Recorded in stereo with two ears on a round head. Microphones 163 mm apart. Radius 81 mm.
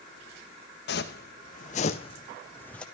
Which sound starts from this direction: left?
Footsteps, at 0.9 s.